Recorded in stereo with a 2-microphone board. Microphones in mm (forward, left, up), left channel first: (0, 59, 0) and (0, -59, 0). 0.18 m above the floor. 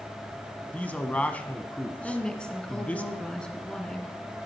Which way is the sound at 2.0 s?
5° left (ahead or behind).